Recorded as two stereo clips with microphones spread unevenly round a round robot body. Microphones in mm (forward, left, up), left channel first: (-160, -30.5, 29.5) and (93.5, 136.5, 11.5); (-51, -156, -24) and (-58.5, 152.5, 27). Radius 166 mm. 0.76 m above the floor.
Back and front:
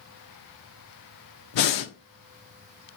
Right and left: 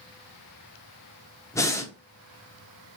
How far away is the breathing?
About 0.7 m.